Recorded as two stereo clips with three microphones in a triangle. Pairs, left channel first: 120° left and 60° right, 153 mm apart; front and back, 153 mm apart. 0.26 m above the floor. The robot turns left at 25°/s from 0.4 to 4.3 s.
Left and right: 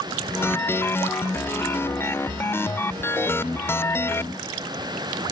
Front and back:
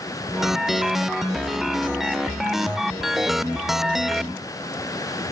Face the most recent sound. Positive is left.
No sound to turn to.